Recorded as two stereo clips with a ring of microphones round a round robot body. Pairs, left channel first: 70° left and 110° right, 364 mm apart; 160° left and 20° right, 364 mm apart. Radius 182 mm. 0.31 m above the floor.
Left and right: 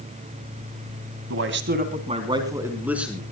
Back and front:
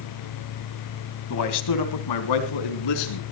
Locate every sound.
1.3 s a man speaking: 160° right, 2 m; by 3.2 s 160° left, 4 m